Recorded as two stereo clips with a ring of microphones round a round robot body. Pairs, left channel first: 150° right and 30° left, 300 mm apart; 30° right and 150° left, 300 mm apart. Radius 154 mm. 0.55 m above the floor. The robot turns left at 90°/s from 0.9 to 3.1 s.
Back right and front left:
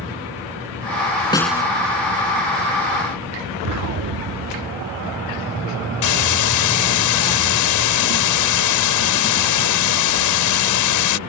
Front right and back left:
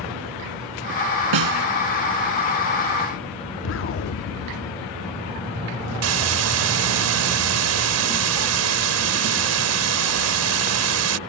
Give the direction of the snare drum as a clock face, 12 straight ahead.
8 o'clock.